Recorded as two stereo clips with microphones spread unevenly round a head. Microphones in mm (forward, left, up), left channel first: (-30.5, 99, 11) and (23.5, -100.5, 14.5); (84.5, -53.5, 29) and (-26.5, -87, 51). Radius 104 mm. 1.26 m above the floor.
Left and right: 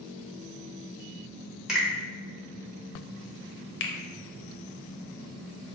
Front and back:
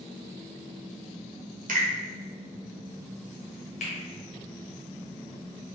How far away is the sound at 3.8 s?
About 0.6 m.